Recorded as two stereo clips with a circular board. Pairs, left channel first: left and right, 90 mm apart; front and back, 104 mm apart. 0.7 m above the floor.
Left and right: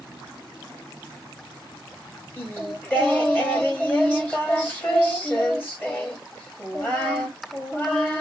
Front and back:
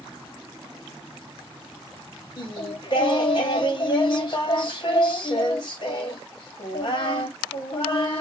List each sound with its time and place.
2.4 s singing: 20° left, 1.4 m